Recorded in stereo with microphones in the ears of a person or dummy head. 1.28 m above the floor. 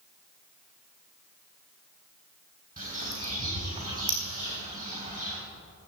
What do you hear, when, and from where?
2.8 s a bird: 40° right (ahead or behind), 3.5 m